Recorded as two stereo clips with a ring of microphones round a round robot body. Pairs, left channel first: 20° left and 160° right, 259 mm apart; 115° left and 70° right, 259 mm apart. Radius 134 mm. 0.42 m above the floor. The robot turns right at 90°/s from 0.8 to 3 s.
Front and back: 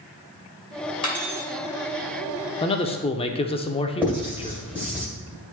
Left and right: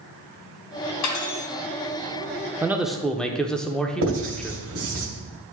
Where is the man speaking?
5° right, 0.8 m; by 4.6 s 30° left, 0.8 m.